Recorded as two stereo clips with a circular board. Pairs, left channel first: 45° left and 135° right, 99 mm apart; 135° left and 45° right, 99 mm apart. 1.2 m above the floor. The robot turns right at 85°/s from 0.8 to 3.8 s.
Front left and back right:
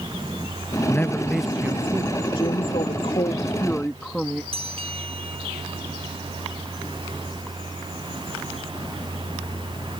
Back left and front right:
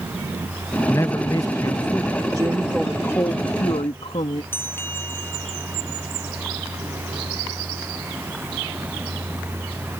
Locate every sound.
0.9 s a man speaking: 90° left; by 2.1 s 160° right
2.4 s a woman speaking: 5° left; by 4.4 s 130° left
4.5 s a bell: 155° right